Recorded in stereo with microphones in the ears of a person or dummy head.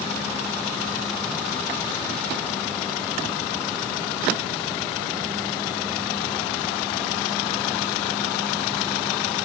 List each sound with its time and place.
Only background noise.